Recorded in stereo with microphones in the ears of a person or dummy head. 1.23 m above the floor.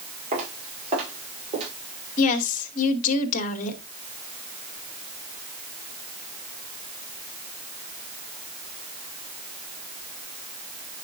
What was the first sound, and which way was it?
Footsteps, 40° right (ahead or behind).